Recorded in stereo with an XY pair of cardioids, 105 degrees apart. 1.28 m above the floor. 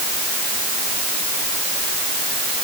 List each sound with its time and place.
Only background noise.